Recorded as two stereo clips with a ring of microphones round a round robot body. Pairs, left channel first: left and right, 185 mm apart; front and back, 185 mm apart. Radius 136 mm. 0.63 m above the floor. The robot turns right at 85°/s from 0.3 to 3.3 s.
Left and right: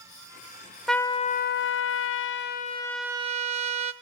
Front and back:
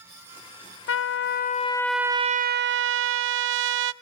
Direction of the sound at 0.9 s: Straight ahead.